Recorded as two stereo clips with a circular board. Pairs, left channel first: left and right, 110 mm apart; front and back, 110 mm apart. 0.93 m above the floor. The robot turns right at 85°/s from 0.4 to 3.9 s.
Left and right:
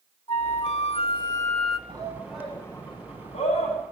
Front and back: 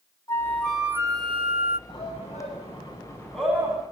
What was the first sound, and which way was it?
A flute, 60° left.